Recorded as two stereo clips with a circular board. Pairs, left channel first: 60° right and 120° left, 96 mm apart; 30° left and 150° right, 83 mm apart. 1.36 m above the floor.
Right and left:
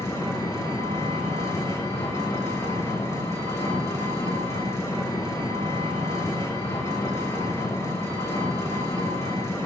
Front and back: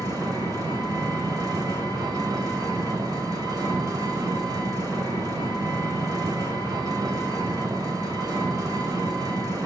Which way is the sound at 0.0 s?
115° right.